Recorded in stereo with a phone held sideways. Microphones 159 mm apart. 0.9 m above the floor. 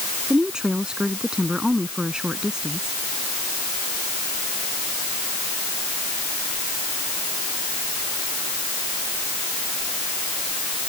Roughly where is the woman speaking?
Centre.